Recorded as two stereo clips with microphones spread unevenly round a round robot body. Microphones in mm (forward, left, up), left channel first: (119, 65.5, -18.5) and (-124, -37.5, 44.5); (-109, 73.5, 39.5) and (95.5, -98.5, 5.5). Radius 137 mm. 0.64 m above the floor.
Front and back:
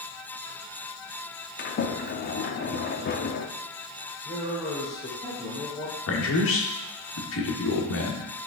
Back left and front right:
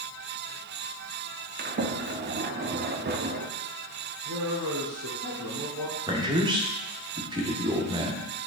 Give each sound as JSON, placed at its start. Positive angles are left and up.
{"t": 1.6, "sound": "a sliding door", "azimuth_deg": -5, "distance_m": 0.7}
{"t": 4.2, "sound": "a man speaking", "azimuth_deg": -35, "distance_m": 2.0}
{"t": 6.1, "sound": "a man speaking", "azimuth_deg": 30, "distance_m": 1.4}